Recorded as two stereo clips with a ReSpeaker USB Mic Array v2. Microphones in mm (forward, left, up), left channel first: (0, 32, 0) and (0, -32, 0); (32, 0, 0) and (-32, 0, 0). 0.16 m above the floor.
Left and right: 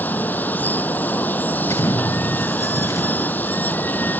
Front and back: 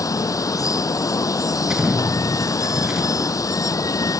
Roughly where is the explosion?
Left.